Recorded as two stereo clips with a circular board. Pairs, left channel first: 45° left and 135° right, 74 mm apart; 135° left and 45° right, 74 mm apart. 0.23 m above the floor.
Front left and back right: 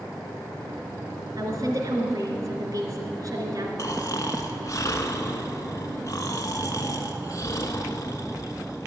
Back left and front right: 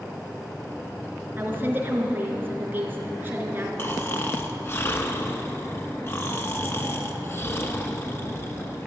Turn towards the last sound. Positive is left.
turn(degrees=85)